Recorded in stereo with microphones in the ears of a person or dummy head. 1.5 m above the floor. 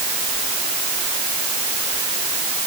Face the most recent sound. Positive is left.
No sound to turn to.